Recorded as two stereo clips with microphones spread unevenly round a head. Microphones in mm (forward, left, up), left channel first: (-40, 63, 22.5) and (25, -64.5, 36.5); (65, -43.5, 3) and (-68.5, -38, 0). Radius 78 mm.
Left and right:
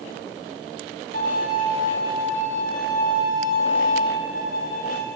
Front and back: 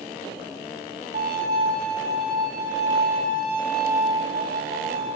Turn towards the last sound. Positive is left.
turn(degrees=140)